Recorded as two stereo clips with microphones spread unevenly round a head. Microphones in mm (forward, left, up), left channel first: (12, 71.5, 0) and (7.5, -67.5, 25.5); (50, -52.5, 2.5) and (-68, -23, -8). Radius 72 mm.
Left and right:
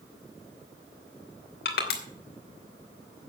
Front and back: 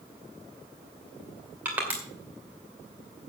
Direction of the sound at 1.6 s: 85° left.